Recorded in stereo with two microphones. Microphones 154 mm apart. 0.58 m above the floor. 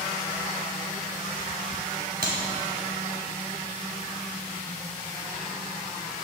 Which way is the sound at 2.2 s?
80° right.